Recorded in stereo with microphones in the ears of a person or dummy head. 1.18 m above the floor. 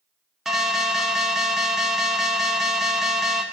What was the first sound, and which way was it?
An alarm, 5° right (ahead or behind).